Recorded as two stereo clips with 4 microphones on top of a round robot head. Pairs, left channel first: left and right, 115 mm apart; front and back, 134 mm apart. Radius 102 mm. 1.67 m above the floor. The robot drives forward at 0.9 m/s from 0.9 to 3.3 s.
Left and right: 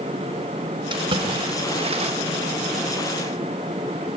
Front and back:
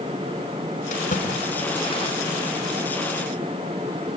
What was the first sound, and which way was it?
A splash, 45° right.